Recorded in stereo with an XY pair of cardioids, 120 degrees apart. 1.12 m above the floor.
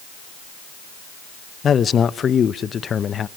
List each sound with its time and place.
1.6 s a man speaking: 40° left, 0.7 m